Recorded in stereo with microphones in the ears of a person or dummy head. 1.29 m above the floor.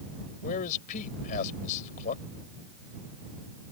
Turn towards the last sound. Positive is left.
turn(degrees=50)  # may be behind; listen again after turning